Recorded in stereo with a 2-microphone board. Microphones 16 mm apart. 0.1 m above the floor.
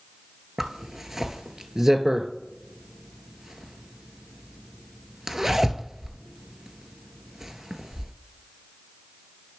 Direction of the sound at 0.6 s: 30° right (ahead or behind).